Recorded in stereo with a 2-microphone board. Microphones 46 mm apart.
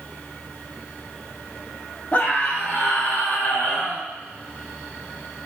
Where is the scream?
45° left (ahead or behind), 7 m; by 4.1 s 35° left (ahead or behind), 7.5 m.